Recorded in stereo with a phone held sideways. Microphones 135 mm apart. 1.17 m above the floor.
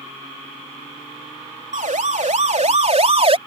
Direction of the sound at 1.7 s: 75° right (ahead or behind).